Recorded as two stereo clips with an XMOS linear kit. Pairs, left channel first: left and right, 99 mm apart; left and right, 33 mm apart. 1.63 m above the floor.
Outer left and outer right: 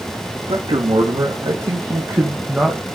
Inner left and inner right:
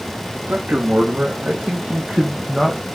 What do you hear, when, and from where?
0.5 s a man speaking: 65° right (ahead or behind), 3 m; by 2.8 s 5° right (ahead or behind), 2 m